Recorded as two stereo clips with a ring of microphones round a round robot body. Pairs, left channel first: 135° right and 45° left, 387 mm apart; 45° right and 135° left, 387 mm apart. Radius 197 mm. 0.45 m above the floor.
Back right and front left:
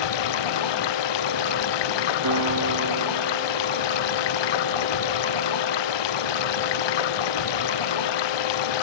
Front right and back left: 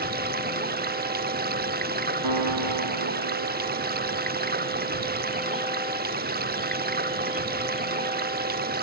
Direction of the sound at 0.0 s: 160° right.